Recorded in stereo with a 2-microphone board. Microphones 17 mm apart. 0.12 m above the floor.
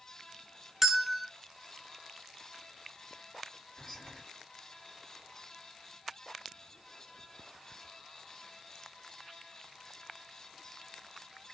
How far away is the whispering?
About 1.8 m.